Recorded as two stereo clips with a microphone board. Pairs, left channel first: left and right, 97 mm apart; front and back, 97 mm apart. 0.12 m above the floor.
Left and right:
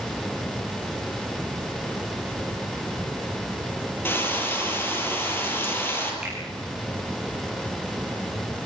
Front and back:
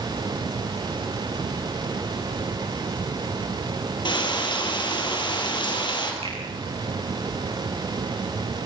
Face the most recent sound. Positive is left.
turn(degrees=-170)